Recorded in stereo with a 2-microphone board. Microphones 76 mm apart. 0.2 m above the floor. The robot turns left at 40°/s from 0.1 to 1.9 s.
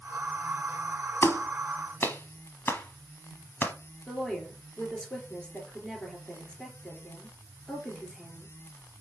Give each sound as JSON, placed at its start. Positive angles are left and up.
{"t": 1.2, "sound": "a clap", "side_deg": 35, "distance_m": 1.1}
{"t": 4.1, "sound": "a woman speaking", "side_deg": 10, "distance_m": 3.0}